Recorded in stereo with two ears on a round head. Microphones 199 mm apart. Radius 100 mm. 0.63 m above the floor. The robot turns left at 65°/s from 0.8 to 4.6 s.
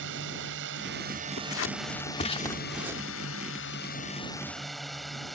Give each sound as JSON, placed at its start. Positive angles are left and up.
{"t": 0.0, "sound": "a drone", "azimuth_deg": -115}
{"t": 1.4, "sound": "scissors", "side_deg": 65}